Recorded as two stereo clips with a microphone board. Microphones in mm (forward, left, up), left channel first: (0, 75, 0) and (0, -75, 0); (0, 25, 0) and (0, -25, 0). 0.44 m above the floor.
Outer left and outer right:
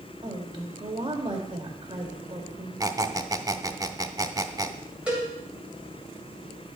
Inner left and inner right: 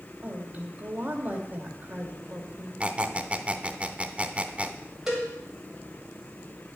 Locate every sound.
0.2 s a woman speaking: 35° right (ahead or behind), 1.9 m
2.8 s a squeak: 25° right (ahead or behind), 0.6 m
5.1 s a cowbell: 10° right (ahead or behind), 3 m